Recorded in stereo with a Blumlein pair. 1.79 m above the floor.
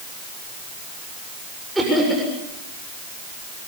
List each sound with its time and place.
1.8 s laughter: 5° right, 7 m